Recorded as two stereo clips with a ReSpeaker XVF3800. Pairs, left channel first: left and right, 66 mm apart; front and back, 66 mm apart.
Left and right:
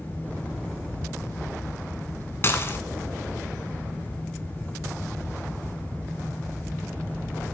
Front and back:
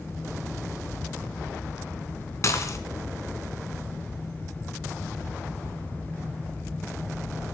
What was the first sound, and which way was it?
Dishes clattering, 35° left.